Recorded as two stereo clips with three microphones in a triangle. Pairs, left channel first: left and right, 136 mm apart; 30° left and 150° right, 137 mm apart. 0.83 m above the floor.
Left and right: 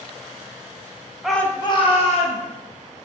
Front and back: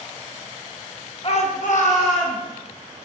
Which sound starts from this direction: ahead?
A shout, at 1.2 s.